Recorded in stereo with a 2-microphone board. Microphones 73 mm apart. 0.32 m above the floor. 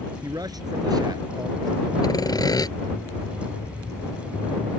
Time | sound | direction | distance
0.2 | a man speaking | 60° right (ahead or behind) | ?
2.0 | sawing | 60° left (ahead or behind) | ?